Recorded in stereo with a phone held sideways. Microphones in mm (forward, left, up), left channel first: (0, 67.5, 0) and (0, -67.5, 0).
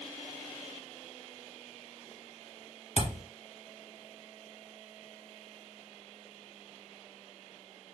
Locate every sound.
3.0 s a thud: 60° right (ahead or behind), 1.4 m